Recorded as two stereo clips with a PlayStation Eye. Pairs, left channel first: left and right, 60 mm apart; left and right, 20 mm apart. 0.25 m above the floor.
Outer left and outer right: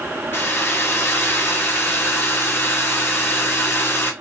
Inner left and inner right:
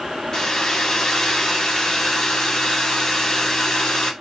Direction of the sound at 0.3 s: 35° left (ahead or behind).